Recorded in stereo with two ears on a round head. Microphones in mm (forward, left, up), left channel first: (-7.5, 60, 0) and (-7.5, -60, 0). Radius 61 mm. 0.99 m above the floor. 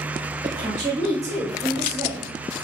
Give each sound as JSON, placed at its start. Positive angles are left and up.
{"t": 0.4, "sound": "a woman speaking", "side_deg": -35, "distance_m": 0.8}